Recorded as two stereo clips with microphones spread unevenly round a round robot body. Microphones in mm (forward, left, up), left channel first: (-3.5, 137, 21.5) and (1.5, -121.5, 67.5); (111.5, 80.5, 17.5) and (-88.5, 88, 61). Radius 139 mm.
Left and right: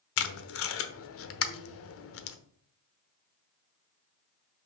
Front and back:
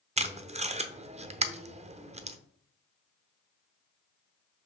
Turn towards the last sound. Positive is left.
turn(degrees=115)